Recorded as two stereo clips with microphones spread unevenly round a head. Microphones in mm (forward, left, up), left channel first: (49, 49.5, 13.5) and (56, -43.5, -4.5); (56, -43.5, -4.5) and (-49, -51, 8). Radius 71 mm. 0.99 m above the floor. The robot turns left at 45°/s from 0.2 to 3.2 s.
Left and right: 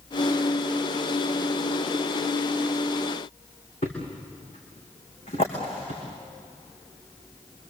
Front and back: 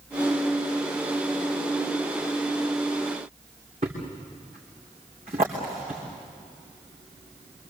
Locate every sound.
3.8 s a thud: 135° left, 5.5 m